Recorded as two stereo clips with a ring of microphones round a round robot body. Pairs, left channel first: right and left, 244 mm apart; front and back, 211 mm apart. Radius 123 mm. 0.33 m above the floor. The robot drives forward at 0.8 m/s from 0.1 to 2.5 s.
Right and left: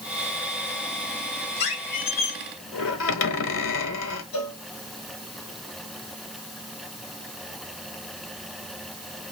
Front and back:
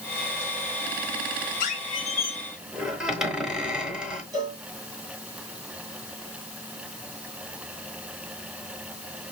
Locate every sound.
1.6 s a squeak: 50° right, 1.3 m; by 4.2 s 95° right, 1.1 m
4.3 s a cowbell: 105° right, 2.5 m